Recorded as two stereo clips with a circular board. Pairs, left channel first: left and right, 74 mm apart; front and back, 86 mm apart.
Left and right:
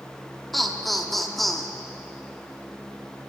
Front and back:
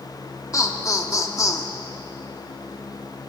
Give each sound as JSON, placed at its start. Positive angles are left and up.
{"t": 0.5, "sound": "laughter", "azimuth_deg": 0, "distance_m": 1.0}